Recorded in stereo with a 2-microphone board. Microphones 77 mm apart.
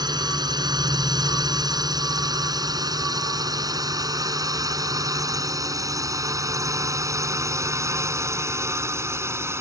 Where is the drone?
60° right (ahead or behind); by 9.6 s 30° right (ahead or behind).